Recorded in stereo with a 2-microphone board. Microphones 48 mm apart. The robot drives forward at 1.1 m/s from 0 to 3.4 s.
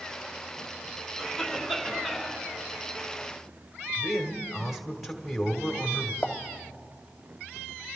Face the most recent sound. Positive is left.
turn(degrees=35)  # may be behind; listen again after turning